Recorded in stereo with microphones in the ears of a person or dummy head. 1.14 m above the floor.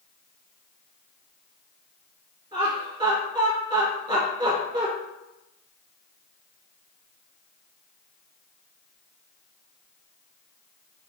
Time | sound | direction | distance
2.5 | laughter | 15° right (ahead or behind) | 1.9 m